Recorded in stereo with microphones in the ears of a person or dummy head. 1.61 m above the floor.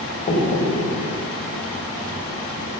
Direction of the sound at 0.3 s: 40° left (ahead or behind).